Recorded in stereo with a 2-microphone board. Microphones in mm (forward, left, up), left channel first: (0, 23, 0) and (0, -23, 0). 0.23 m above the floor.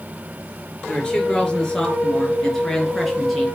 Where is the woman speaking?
20° left (ahead or behind), 4 m; by 3.5 s centre (ahead or behind), 3.5 m.